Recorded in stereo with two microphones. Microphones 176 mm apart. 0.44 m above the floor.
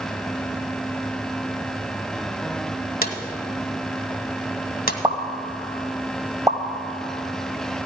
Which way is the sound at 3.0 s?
55° left (ahead or behind).